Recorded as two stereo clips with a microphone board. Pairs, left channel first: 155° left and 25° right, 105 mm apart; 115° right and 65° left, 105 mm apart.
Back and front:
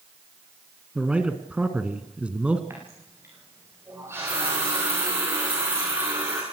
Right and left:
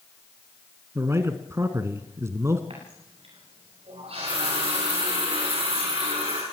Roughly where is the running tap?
Ahead left.